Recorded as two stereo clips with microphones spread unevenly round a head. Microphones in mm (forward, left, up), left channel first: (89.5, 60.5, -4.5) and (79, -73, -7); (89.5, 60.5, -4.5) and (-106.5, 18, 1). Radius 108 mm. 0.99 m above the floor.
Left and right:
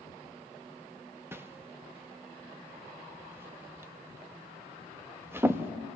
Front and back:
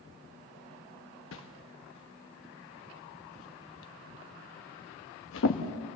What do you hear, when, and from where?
1.3 s a whoosh: 20° right, 1.1 m